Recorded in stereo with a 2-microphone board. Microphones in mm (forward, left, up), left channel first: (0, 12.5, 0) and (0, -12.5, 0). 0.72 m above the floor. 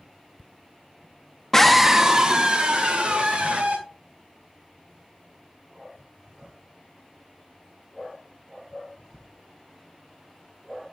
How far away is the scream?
About 0.7 m.